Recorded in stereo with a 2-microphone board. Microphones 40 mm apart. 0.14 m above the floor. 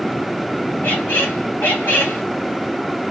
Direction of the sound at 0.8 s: 60° left (ahead or behind).